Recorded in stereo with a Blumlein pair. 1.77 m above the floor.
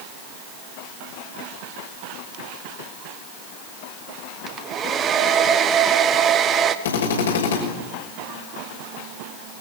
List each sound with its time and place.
4.5 s a hair dryer: 25° right, 1.5 m
6.8 s a drill: 65° left, 6 m